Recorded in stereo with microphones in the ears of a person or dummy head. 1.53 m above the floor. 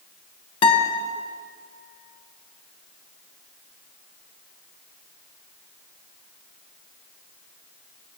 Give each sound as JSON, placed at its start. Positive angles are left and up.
{"t": 0.6, "sound": "a guitar", "side_deg": 35, "distance_m": 1.1}